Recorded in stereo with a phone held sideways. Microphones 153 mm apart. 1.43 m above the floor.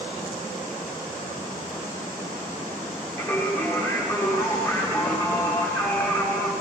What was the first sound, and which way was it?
Singing, 20° left (ahead or behind).